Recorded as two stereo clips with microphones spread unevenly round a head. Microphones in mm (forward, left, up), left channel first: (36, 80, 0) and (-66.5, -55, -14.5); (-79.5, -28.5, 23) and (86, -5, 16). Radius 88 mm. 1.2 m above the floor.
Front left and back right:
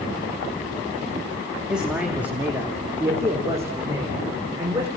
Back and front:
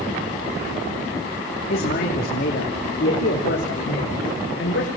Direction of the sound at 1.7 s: 145° left.